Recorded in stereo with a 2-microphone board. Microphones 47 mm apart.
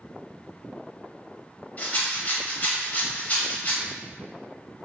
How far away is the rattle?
About 0.6 m.